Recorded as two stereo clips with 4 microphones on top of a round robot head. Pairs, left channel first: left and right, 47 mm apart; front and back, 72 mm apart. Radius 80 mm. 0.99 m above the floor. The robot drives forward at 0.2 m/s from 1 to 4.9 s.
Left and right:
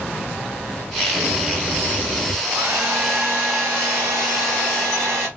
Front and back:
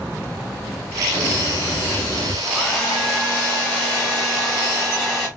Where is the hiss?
55° right, 2 m; by 2.3 s 65° right, 1.9 m.